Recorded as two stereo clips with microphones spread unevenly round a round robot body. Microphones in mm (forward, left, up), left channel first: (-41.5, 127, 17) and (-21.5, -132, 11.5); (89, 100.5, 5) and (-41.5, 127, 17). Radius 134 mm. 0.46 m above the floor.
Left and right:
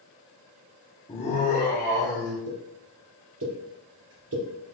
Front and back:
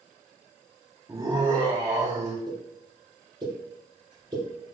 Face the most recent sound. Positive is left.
turn(degrees=-125)